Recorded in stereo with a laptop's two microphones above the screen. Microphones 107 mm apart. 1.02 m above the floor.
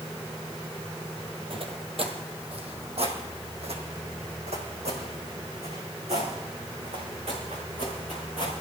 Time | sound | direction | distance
1.5 | footsteps | 55° right (ahead or behind) | 1.7 m